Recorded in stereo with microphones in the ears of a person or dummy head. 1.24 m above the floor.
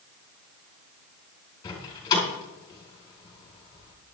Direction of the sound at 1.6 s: 30° left (ahead or behind).